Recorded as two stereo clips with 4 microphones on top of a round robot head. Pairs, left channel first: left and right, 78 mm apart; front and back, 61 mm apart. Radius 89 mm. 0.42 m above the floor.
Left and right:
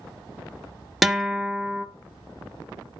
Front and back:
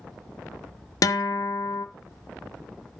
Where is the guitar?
Straight ahead, 0.8 m.